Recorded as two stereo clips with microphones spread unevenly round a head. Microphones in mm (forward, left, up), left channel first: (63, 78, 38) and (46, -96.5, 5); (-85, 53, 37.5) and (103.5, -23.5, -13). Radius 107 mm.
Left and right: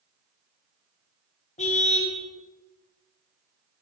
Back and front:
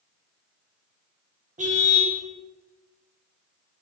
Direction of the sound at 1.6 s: 40° left.